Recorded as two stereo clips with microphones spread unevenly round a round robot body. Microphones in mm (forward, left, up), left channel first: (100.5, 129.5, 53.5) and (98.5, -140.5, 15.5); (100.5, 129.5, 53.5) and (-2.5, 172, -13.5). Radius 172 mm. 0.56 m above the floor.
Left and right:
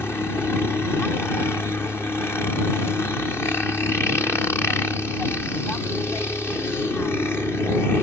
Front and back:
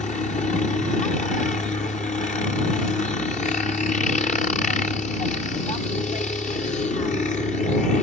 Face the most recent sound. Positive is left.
turn(degrees=5)